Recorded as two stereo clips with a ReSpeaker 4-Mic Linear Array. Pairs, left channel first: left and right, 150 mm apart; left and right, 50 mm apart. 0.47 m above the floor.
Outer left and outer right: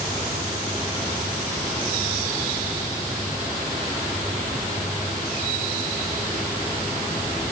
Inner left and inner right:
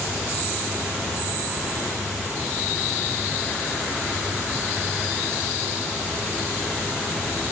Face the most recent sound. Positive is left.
No sound to turn to.